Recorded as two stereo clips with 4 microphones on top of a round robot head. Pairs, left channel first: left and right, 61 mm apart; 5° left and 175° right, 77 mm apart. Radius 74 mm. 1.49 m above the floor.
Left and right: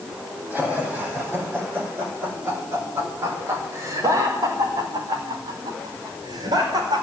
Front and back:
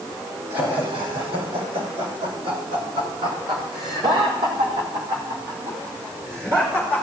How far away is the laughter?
About 8 m.